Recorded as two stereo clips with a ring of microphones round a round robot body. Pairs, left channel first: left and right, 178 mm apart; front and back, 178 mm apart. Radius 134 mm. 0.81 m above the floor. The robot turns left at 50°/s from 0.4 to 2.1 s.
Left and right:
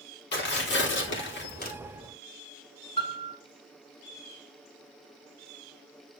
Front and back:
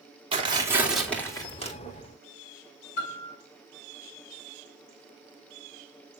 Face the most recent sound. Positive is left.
turn(degrees=25)